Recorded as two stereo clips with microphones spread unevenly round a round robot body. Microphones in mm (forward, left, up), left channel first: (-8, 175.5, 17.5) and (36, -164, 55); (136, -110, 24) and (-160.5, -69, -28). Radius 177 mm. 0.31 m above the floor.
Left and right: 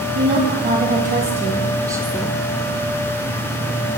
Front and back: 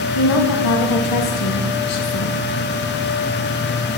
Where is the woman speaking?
20° right, 2 m; by 2.4 s 25° left, 1.0 m.